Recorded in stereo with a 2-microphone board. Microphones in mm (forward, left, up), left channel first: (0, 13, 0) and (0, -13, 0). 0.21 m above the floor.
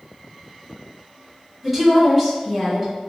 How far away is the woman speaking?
About 1.4 m.